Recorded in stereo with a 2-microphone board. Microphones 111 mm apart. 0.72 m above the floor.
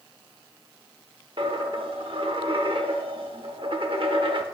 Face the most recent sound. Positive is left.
turn(degrees=-55)  # may be behind; listen again after turning